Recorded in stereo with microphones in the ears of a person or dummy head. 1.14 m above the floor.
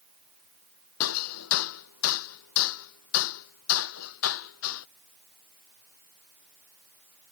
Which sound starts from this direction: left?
Hammering, at 1.0 s.